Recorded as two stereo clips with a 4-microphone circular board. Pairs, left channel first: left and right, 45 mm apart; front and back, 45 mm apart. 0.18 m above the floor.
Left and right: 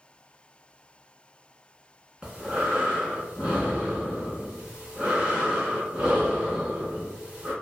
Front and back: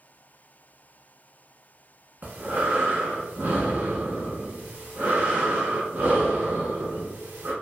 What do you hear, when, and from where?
2.2 s breathing: 155° right, 0.9 m